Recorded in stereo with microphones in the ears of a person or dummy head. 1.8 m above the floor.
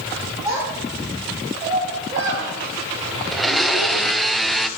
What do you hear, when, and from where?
0.5 s a child speaking: 15° right (ahead or behind), 3 m; by 4.1 s 60° right (ahead or behind), 2.5 m
3.3 s a blender: centre (ahead or behind), 0.6 m